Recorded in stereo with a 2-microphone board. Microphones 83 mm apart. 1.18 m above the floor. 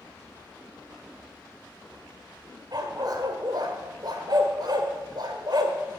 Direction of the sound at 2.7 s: 50° right (ahead or behind).